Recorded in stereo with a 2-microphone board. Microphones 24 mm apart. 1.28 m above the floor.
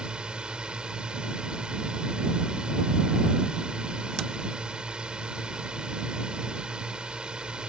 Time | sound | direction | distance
0.0 | a drone | 45° right (ahead or behind) | ?